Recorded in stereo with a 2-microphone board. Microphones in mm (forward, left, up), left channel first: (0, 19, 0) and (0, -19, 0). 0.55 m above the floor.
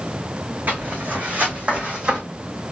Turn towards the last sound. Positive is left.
turn(degrees=-25)  # may be behind; listen again after turning